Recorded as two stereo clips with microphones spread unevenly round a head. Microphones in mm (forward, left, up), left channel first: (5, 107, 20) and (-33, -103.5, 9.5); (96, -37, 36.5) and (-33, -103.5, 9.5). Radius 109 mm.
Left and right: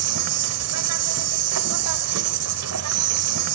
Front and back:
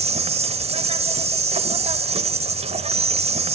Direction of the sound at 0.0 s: 105° right.